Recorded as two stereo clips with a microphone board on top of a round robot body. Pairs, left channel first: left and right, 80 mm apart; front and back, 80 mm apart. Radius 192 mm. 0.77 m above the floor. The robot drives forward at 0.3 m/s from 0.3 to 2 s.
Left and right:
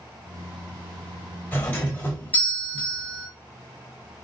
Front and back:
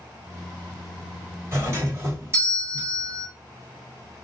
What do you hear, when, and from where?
1.5 s a doorbell: 145° left, 1.5 m; by 3.3 s 150° left, 1.6 m